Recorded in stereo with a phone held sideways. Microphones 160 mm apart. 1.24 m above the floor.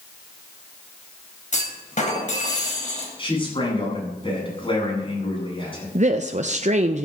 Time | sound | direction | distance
1.5 | a clunk | 50° left (ahead or behind) | 3.5 m
3.2 | a man speaking | 35° left (ahead or behind) | 9.5 m
6.0 | a woman speaking | 50° right (ahead or behind) | 0.7 m